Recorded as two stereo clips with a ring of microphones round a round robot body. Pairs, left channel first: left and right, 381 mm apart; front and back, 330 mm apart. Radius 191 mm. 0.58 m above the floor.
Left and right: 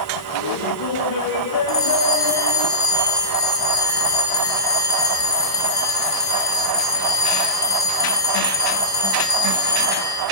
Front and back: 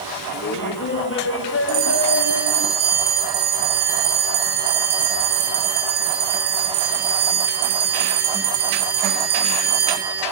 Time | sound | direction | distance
0.3 | laughter | 60° left | 3.5 m
1.7 | a bell | 170° left | 6.5 m